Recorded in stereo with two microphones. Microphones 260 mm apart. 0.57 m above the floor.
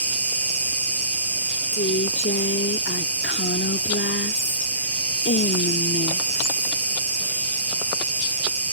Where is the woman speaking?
50° left (ahead or behind).